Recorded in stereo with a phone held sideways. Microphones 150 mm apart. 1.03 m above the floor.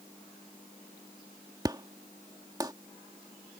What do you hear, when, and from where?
1.6 s an explosion: 25° right (ahead or behind)